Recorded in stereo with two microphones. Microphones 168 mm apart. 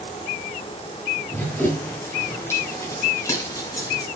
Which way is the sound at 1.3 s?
10° left (ahead or behind).